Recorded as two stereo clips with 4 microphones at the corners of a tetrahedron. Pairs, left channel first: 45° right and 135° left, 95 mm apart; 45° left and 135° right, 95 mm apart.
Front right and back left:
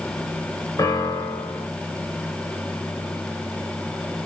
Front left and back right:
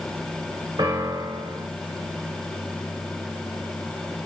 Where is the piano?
95° right, 1.2 m.